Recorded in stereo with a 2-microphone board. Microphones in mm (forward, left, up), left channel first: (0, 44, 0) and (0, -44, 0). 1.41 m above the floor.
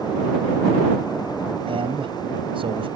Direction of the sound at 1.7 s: 85° right.